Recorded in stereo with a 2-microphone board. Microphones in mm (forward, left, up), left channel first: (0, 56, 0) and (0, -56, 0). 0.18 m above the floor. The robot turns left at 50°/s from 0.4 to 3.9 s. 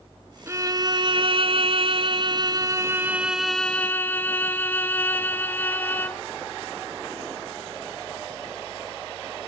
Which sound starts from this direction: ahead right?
A violin, at 0.5 s.